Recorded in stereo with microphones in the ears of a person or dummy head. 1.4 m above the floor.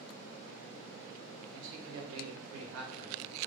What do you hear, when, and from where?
1.5 s a man speaking: 65° right (ahead or behind), 0.8 m; by 3.4 s 45° right (ahead or behind), 0.9 m